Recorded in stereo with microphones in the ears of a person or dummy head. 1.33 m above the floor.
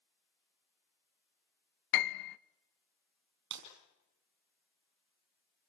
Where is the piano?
55° left (ahead or behind), 0.6 m.